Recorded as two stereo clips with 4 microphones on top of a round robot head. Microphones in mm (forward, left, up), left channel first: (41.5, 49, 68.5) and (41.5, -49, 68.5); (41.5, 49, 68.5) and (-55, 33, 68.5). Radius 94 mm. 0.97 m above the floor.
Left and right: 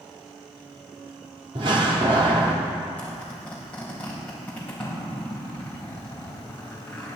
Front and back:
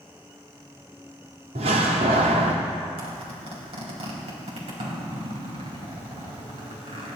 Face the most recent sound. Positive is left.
turn(degrees=170)